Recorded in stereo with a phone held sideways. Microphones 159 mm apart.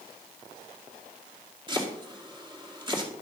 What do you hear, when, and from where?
1.7 s chopping: 30° right (ahead or behind), 2 m